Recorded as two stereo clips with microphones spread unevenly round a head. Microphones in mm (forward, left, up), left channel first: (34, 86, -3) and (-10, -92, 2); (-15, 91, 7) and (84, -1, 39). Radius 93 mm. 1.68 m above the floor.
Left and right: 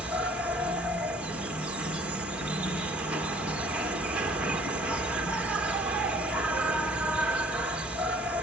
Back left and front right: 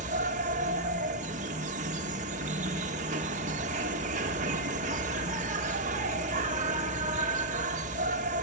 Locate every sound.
0.0 s an insect: 20° right, 2 m